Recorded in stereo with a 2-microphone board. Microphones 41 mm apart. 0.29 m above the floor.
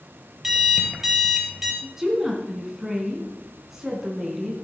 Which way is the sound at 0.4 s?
10° right (ahead or behind).